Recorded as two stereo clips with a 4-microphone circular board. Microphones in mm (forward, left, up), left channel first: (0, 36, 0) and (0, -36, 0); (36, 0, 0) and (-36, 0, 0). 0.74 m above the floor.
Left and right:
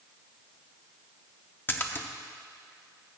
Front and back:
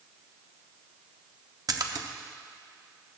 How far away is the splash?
About 0.7 m.